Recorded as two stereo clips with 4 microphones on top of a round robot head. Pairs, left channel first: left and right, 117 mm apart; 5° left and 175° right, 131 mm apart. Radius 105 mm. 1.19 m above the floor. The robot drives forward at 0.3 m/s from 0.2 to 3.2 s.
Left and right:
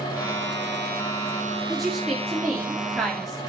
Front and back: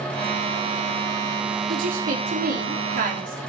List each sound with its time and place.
1.7 s a woman speaking: straight behind, 3 m